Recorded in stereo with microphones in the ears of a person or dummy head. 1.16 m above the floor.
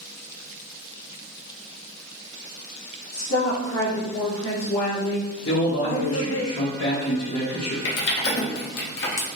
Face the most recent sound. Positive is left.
turn(degrees=60)  # may be behind; listen again after turning